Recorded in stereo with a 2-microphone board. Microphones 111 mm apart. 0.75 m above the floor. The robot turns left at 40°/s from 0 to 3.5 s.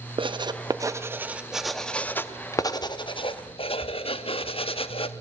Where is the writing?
50° right (ahead or behind), 0.8 m; by 5.1 s 55° left (ahead or behind), 0.8 m.